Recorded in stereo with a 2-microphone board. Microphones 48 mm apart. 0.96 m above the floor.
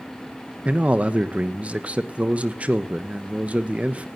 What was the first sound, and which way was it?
A man speaking, 30° right (ahead or behind).